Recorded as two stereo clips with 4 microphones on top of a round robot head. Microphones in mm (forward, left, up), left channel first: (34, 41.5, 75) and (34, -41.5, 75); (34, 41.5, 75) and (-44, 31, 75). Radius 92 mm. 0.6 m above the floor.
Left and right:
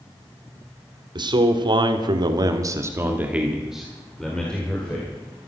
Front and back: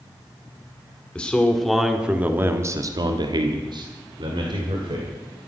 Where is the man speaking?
70° right, 2 m; by 5.1 s 165° left, 3 m.